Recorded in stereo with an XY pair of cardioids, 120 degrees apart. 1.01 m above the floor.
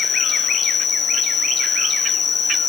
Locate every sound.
0.0 s an insect: 45° left, 1.8 m